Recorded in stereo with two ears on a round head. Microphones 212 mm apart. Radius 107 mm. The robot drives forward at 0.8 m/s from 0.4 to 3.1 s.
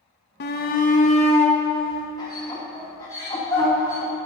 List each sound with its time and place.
0.4 s a shout: 45° left (ahead or behind), 1.0 m; by 4.1 s 15° left (ahead or behind), 3 m